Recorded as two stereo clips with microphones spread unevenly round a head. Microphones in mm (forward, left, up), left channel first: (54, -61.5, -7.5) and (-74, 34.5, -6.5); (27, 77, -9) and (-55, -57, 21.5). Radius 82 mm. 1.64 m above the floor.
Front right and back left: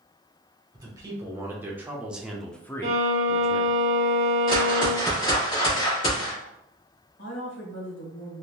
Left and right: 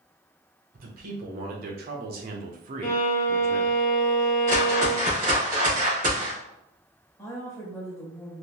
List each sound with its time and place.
0.7 s a man speaking: 150° right, 1.5 m; by 3.8 s 40° right, 0.6 m
2.8 s a violin: 100° left, 1.1 m
4.5 s a whoosh: 90° right, 2 m
7.2 s a woman speaking: 20° right, 1.4 m